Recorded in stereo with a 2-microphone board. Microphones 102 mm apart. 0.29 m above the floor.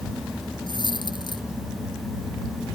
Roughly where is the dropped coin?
Left.